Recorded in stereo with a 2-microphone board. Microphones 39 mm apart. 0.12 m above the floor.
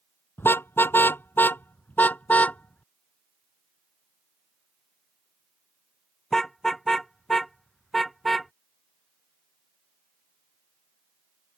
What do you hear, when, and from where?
0.4 s a car horn: 70° left (ahead or behind); by 8.5 s centre (ahead or behind)